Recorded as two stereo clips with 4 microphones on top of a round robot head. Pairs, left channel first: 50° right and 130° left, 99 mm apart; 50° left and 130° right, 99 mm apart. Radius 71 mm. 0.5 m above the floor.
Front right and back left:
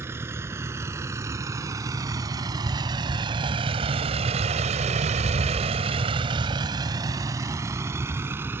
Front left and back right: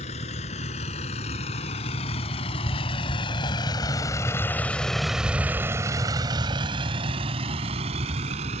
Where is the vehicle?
65° left; by 8.6 s 155° right.